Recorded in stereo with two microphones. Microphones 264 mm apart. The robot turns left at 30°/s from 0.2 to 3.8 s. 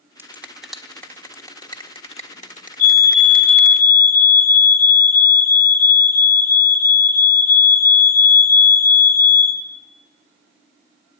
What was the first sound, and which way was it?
A finger snap, 10° right (ahead or behind).